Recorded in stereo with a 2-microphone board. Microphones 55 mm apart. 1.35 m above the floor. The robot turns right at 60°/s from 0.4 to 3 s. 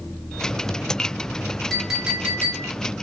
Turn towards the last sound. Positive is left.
turn(degrees=-110)